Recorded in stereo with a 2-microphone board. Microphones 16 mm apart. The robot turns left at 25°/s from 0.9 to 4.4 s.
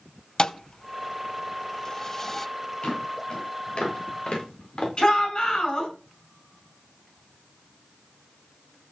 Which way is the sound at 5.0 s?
55° left (ahead or behind).